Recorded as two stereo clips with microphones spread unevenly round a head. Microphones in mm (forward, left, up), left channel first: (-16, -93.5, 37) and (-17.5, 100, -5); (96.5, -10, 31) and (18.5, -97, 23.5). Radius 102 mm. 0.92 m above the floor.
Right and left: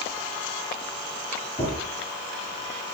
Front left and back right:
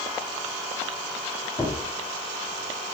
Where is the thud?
20° right, 7.5 m.